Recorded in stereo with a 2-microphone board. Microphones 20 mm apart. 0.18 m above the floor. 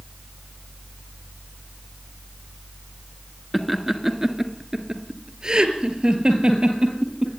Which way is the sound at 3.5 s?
5° right (ahead or behind).